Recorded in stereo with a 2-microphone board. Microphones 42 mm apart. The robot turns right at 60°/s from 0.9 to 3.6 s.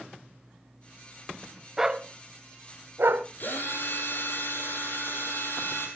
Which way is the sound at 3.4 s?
45° left (ahead or behind).